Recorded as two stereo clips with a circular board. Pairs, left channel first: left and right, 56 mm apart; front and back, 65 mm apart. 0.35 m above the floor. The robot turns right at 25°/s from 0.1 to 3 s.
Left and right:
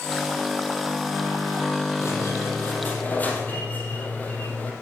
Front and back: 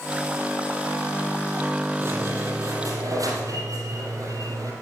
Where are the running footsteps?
No running footsteps in this recording.